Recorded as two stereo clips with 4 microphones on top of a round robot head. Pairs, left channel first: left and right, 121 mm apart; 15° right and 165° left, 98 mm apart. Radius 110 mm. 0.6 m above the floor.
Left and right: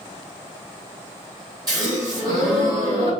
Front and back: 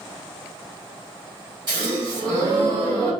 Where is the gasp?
145° right, 2 m.